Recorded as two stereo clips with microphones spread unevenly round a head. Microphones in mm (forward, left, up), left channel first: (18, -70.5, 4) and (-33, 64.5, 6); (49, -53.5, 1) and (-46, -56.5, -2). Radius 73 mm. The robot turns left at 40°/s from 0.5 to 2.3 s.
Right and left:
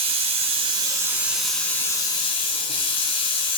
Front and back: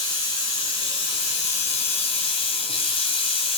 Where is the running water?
60° left, 2.5 m; by 3.6 s 15° right, 2.5 m.